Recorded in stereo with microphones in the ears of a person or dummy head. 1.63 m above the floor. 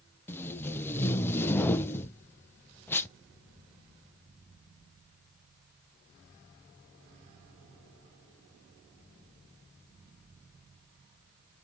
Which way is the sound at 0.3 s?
15° left (ahead or behind).